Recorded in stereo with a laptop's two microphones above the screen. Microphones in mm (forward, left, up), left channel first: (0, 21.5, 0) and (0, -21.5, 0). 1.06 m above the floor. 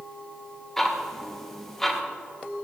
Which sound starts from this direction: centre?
Ticking, at 0.8 s.